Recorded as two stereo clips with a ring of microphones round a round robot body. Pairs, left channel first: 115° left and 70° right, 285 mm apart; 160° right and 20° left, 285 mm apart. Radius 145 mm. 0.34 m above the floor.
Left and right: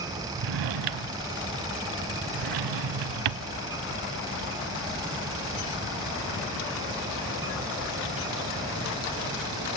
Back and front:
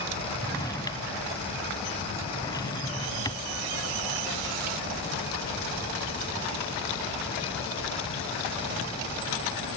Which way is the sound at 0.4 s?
80° right.